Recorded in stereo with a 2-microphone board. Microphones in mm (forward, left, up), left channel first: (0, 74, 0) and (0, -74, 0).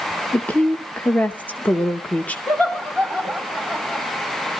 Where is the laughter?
5° left (ahead or behind), 2 m.